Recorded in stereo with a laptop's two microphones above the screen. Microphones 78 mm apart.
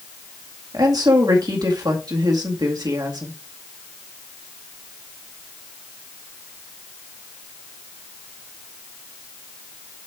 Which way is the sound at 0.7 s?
55° right (ahead or behind).